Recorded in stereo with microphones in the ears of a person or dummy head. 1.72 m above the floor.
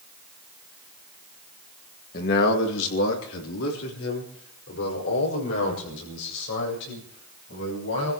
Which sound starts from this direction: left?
A man speaking, at 2.1 s.